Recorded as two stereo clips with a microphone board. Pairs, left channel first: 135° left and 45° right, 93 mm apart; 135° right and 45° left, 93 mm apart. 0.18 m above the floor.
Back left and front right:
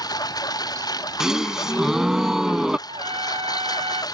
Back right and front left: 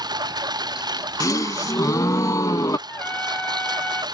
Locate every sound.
0.0 s a lawn mower: 90° left
1.2 s a gasp: 125° right
2.9 s a trumpet: 60° right